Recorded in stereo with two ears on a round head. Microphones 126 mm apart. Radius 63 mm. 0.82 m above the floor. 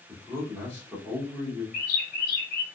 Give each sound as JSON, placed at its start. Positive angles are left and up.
{"t": 0.1, "sound": "a man speaking", "side_deg": 15, "distance_m": 1.8}
{"t": 1.7, "sound": "a bird", "side_deg": 65, "distance_m": 1.2}